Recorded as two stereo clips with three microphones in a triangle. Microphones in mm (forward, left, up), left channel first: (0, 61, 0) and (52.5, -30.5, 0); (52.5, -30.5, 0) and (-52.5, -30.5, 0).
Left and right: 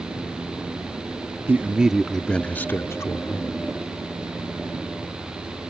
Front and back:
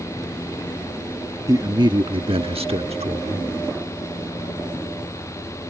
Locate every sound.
1.5 s a man speaking: 125° right; by 3.6 s 175° left